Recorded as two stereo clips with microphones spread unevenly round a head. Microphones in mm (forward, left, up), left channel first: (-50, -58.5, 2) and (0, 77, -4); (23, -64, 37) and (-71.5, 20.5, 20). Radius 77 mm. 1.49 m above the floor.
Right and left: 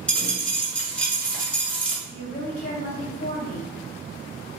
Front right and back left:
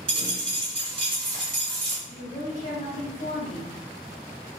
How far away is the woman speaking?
About 1.6 m.